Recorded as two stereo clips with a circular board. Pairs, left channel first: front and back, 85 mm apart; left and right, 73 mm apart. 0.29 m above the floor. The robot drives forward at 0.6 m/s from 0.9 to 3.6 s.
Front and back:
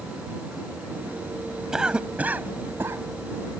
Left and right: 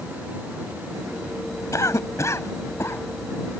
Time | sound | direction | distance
1.7 | a cough | 100° left | ?